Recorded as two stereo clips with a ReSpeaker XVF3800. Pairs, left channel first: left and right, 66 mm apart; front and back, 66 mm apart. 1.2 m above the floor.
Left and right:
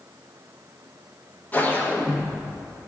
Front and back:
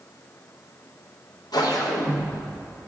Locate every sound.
1.5 s a whoosh: 25° left, 0.9 m